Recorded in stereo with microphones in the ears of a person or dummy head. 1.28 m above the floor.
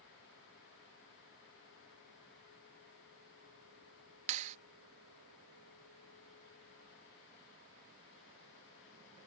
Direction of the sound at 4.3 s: 40° right (ahead or behind).